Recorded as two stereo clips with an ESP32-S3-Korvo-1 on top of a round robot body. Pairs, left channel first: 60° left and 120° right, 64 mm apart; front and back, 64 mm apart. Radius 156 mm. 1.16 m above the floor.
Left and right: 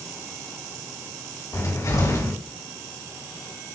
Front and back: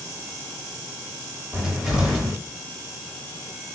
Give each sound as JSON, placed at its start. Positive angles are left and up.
{"t": 1.5, "sound": "a cupboard door", "azimuth_deg": 95, "distance_m": 4.5}